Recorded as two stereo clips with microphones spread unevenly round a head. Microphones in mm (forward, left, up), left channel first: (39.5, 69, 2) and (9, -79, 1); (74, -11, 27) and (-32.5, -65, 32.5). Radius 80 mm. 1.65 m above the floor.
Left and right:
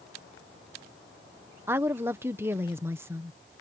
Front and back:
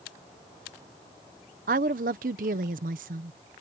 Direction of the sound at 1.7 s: Straight behind.